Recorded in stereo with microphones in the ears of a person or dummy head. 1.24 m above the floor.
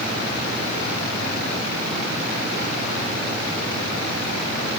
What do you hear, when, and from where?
Only background noise.